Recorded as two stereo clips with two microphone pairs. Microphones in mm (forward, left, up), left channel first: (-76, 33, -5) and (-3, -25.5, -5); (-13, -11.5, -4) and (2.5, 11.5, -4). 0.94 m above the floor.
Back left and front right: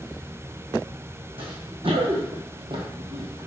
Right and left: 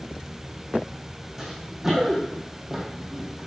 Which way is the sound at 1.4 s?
25° right.